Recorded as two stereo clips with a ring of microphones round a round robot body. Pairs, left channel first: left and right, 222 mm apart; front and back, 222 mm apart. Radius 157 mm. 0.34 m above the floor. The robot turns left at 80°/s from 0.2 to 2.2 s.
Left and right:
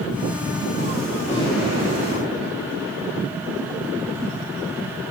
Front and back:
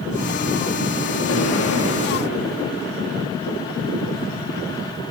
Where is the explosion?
20° left, 6.5 m; by 2.9 s 55° right, 6.5 m.